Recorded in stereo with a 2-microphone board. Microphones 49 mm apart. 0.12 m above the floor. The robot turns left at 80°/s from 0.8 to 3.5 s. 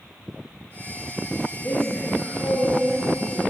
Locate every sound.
1.6 s a woman speaking: 55° left, 3 m; by 3.4 s 85° right, 3 m